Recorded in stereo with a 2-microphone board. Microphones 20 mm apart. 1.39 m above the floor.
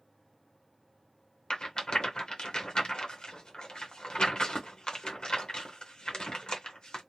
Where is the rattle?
55° left (ahead or behind), 0.7 m.